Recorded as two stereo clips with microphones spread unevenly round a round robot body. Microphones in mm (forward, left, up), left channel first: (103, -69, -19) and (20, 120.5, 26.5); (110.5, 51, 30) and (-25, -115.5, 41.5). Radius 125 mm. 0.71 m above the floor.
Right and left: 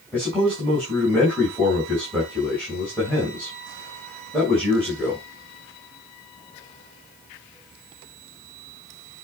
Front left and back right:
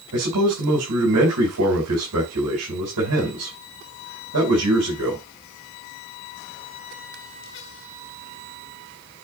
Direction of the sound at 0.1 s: 150° right.